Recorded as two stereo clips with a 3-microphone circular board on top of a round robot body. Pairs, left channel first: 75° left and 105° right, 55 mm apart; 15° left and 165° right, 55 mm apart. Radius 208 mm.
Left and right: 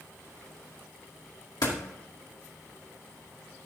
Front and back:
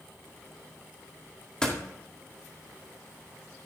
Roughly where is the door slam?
Left.